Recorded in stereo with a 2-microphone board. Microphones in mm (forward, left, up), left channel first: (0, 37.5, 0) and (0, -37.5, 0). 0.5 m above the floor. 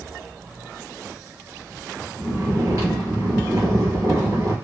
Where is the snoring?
50° right (ahead or behind), 3 m.